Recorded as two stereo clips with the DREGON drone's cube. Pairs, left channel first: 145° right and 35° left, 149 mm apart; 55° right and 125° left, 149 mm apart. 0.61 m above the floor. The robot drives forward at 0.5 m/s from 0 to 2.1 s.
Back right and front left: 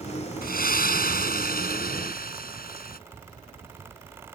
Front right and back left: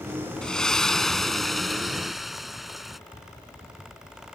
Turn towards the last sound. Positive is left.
turn(degrees=-145)